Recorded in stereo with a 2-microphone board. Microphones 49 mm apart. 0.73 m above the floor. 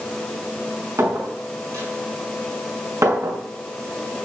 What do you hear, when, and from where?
1.0 s a clink: 85° right, 5 m